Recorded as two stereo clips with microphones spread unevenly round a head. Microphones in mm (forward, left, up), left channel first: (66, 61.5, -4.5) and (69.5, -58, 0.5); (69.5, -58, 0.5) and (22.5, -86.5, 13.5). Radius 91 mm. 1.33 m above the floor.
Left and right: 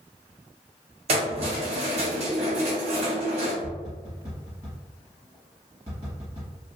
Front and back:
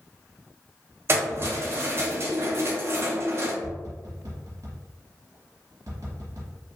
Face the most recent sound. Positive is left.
turn(degrees=-150)